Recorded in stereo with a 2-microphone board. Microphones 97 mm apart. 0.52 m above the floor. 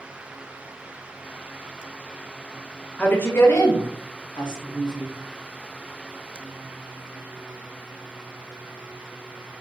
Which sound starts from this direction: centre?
A woman speaking, at 3.0 s.